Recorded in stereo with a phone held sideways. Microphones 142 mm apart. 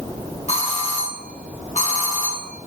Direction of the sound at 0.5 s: 60° left (ahead or behind).